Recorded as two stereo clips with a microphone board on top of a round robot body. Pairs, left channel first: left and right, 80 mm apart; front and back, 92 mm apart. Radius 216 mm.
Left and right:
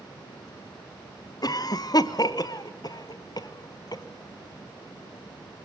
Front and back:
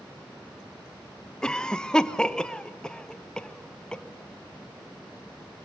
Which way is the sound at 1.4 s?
80° left.